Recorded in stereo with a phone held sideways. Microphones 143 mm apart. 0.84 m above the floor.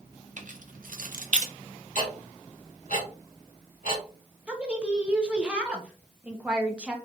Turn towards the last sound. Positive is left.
turn(degrees=-5)  # may be behind; listen again after turning